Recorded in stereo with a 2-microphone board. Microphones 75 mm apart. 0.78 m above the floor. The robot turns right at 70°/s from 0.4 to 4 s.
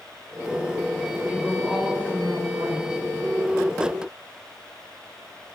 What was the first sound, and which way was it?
A woman speaking, 145° left.